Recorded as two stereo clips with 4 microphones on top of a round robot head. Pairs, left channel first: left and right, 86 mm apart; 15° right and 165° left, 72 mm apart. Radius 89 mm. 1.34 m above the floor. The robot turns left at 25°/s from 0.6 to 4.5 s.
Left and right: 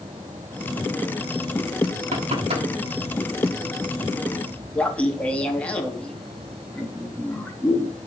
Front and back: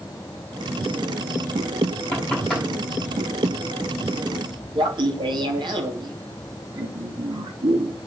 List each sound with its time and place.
2.1 s knocking: 90° right, 7.5 m; by 2.7 s 105° right, 7.5 m
4.8 s laughter: 165° left, 3.5 m